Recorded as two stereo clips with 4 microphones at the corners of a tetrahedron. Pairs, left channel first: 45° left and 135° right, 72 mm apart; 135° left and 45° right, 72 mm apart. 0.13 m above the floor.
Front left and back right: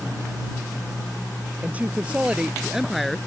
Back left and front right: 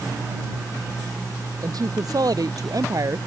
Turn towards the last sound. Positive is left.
turn(degrees=-40)